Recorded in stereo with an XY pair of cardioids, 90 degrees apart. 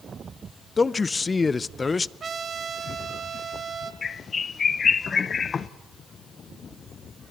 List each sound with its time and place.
0.8 s a man speaking: 30° left, 0.5 m
2.2 s a trumpet: 50° right, 1.7 m
4.0 s a bird: 45° left, 0.7 m